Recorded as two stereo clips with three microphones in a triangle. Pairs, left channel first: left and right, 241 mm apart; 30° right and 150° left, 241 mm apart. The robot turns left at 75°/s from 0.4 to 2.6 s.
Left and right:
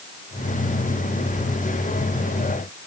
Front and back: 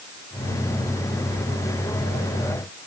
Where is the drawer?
I don't hear a drawer.